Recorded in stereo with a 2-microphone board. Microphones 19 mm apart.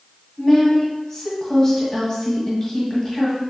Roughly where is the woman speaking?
Left.